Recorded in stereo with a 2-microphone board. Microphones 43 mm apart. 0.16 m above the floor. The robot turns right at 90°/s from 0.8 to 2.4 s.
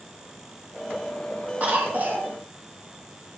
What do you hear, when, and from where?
1.6 s a cough: 115° right, 2 m; by 2.3 s 55° right, 2 m